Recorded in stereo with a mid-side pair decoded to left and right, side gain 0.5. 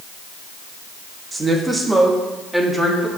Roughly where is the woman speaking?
Ahead right.